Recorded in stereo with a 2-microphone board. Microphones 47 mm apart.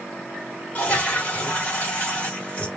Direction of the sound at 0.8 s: 35° left (ahead or behind).